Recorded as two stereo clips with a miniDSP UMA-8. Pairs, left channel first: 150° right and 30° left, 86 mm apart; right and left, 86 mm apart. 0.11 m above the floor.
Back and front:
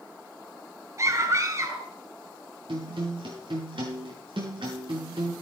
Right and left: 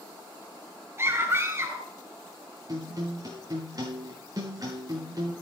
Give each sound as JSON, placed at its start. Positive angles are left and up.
{"t": 1.0, "sound": "a scream", "azimuth_deg": 50, "distance_m": 1.5}
{"t": 2.7, "sound": "a guitar", "azimuth_deg": 45, "distance_m": 6.0}